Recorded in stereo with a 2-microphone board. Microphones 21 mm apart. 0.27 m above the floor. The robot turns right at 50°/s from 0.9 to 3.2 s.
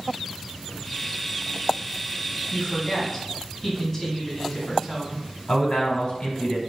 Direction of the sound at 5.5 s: 50° left (ahead or behind).